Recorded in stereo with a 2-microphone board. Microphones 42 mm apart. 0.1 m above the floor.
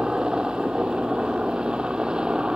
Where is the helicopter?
20° right (ahead or behind).